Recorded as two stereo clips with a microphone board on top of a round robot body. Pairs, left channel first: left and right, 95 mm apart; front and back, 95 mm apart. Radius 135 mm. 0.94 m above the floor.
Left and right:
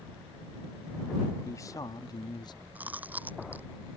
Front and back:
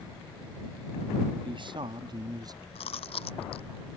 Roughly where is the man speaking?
Behind left.